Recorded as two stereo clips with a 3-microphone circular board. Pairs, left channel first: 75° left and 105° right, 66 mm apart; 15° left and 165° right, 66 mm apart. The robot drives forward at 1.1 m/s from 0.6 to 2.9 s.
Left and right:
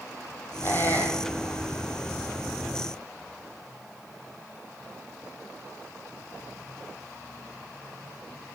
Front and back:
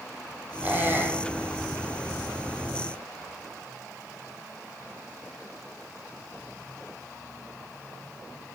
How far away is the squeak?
About 2 m.